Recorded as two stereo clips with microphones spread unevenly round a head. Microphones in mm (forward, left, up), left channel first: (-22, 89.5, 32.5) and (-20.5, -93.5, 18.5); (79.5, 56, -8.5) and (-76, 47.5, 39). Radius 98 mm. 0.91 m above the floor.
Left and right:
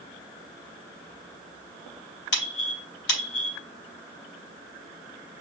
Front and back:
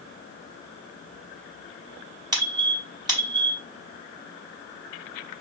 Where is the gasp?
I don't hear a gasp.